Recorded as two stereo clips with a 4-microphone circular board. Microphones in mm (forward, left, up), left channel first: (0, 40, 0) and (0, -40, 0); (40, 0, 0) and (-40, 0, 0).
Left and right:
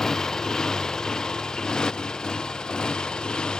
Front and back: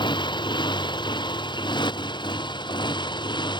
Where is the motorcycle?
5° left; by 3.6 s 10° left.